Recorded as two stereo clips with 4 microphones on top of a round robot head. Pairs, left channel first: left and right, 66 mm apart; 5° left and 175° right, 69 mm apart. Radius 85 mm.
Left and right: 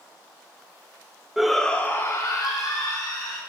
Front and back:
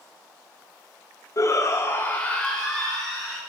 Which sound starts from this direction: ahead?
A shout, at 1.4 s.